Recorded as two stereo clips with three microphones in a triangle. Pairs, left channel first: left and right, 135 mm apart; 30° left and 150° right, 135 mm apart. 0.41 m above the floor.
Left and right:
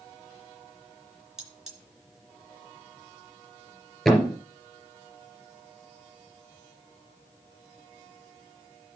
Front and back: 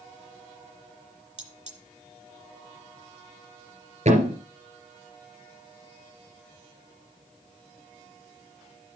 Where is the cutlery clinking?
175° right, 3 m.